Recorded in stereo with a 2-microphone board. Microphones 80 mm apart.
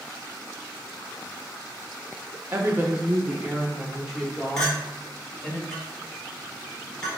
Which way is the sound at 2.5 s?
35° right (ahead or behind).